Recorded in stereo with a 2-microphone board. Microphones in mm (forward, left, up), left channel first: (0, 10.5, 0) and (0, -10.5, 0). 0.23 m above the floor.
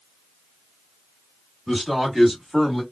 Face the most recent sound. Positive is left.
turn(degrees=-15)  # may be behind; listen again after turning